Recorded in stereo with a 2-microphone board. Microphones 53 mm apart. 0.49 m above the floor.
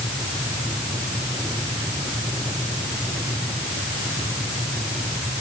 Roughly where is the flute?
No flute in this recording.